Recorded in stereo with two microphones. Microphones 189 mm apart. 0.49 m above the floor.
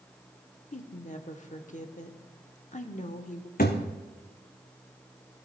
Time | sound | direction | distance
0.7 | a woman speaking | 45° left (ahead or behind) | 0.9 m
3.6 | a thud | 55° left (ahead or behind) | 1.9 m